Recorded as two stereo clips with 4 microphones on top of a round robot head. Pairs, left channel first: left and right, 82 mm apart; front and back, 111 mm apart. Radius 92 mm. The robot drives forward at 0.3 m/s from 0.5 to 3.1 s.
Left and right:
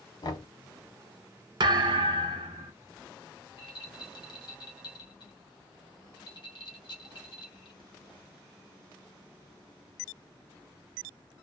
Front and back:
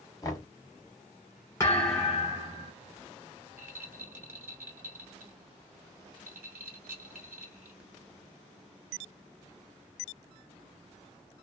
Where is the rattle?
110° left, 1.7 m.